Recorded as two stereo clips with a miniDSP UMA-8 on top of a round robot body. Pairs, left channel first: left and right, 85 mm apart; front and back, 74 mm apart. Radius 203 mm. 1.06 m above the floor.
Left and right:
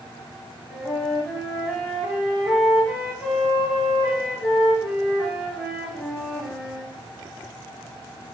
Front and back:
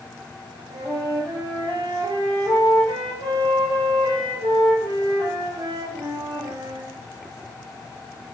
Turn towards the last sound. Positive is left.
turn(degrees=180)